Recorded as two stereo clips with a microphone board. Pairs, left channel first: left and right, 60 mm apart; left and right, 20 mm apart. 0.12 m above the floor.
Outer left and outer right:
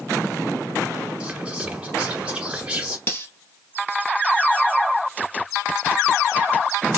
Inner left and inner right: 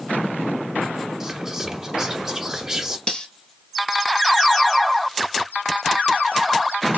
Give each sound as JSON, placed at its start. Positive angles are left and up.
{"t": 1.2, "sound": "whispering", "side_deg": -15, "distance_m": 1.1}
{"t": 3.1, "sound": "cutlery clinking", "side_deg": 45, "distance_m": 1.6}